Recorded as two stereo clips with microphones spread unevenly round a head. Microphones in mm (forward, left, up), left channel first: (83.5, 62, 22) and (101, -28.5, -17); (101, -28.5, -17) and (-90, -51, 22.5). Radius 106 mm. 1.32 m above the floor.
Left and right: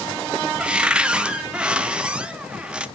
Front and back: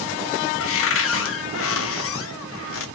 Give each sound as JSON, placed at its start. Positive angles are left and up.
{"t": 0.6, "sound": "a cupboard door", "azimuth_deg": 15, "distance_m": 0.6}